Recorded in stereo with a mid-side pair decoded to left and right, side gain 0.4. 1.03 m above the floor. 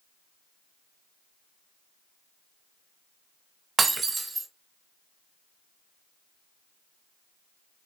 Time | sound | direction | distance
3.8 | breaking glass | 45° right | 0.9 m